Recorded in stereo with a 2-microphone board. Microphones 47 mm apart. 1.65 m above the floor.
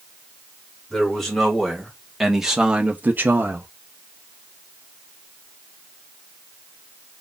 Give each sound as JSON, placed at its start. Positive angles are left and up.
{"t": 0.9, "sound": "a man speaking", "side_deg": 10, "distance_m": 2.5}